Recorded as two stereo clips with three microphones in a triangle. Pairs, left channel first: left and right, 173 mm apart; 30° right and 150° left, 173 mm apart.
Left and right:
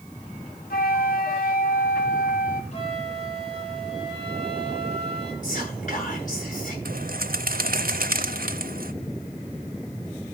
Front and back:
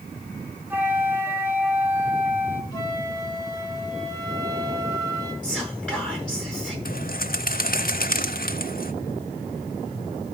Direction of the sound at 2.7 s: 40° left.